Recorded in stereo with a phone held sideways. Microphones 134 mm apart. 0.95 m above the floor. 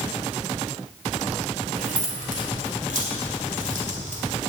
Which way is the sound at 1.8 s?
85° right.